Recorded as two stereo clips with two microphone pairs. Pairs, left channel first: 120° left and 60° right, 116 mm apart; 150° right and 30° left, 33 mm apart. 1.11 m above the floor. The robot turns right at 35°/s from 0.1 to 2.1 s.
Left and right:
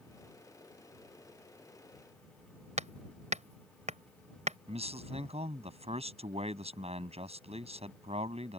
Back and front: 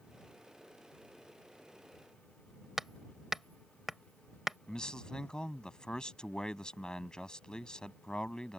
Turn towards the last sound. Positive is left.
turn(degrees=-90)